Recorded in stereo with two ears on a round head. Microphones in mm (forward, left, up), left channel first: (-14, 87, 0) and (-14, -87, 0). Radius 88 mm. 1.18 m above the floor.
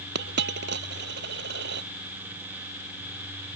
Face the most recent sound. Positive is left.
turn(degrees=-60)  # may be behind; listen again after turning